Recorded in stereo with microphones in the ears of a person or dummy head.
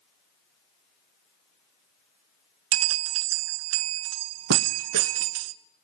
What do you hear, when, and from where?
2.7 s a bell: 90° right, 0.9 m